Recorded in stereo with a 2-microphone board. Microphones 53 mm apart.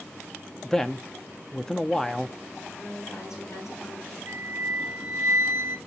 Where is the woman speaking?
80° left, 8 m.